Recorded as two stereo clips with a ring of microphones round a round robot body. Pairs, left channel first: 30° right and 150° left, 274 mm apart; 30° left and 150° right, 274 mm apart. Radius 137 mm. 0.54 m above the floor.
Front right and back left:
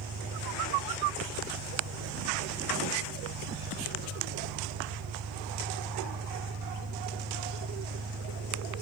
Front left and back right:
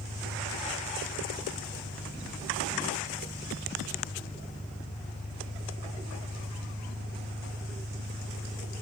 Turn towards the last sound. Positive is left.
turn(degrees=120)